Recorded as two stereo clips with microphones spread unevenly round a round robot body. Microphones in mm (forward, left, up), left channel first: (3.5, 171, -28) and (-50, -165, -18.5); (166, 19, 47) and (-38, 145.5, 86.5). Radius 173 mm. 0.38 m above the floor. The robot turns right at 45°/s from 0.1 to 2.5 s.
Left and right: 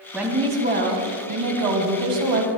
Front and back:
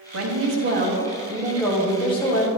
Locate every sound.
0.1 s a woman speaking: 175° left, 2.5 m; by 2.5 s 80° right, 2.5 m